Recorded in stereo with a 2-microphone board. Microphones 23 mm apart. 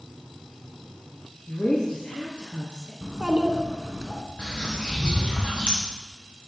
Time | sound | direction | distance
1.5 | a woman speaking | 60° left (ahead or behind) | 2 m
3.0 | a child speaking | 25° right (ahead or behind) | 1.2 m
4.4 | a bird | 65° left (ahead or behind) | 3 m